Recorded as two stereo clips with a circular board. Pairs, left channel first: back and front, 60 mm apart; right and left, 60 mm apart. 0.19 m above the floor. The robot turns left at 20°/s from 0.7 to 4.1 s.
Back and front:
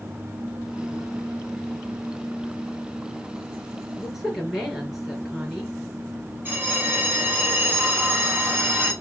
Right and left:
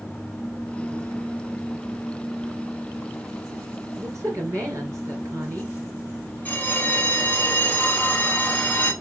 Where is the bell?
40° right, 1.0 m.